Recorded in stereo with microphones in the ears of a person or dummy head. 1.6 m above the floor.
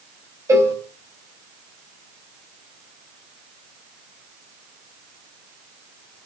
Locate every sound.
0.5 s a cowbell: 20° right (ahead or behind), 4 m